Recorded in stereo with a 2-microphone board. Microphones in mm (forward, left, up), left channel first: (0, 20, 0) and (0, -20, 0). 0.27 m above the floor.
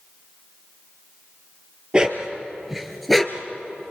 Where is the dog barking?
25° right (ahead or behind), 2.5 m; by 3.5 s 10° left (ahead or behind), 2 m.